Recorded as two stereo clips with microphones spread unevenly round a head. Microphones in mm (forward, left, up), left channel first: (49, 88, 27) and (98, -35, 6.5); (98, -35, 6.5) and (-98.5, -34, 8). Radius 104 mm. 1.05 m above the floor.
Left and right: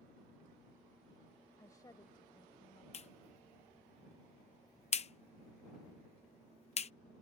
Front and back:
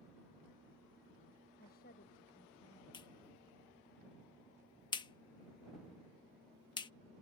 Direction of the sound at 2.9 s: 70° left.